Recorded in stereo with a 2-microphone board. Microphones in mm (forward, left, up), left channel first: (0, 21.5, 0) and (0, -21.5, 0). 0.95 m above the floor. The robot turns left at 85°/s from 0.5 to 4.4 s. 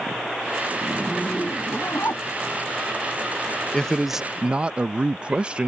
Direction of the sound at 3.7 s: 25° left.